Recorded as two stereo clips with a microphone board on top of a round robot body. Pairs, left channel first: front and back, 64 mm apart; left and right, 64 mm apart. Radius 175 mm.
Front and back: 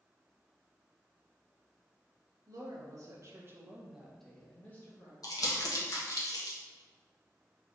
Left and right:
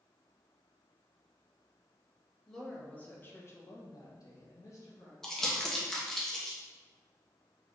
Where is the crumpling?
10° left, 1.1 m.